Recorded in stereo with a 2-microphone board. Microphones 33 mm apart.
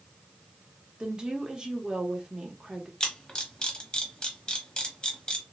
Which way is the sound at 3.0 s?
25° left (ahead or behind).